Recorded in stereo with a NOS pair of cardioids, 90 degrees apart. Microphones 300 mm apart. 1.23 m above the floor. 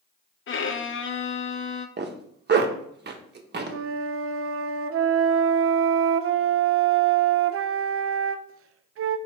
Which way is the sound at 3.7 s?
50° right.